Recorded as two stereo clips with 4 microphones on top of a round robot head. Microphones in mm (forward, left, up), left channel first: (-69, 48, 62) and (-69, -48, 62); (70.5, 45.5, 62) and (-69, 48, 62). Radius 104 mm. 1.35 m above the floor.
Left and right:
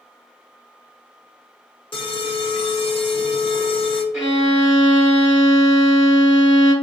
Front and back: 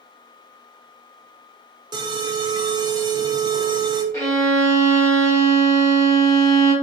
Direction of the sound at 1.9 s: 120° left.